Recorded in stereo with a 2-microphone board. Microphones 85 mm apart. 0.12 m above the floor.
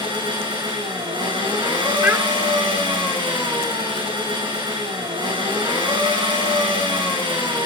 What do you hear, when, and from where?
0.0 s an engine running: 70° right (ahead or behind), 6.5 m
2.0 s a child speaking: 25° right (ahead or behind), 1.2 m